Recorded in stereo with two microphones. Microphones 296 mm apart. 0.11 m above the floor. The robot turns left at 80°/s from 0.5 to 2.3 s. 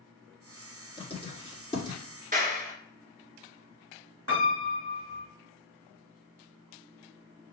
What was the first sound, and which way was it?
Writing, 15° left (ahead or behind).